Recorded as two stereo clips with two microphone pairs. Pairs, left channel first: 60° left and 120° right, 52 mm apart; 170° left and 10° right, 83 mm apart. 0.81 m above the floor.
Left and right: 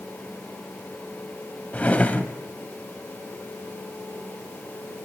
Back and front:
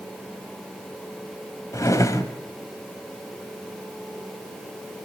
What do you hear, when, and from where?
1.7 s a drawer: 125° left, 1.7 m